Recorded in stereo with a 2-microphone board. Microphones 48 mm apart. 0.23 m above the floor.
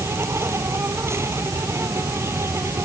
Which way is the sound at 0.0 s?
65° right (ahead or behind).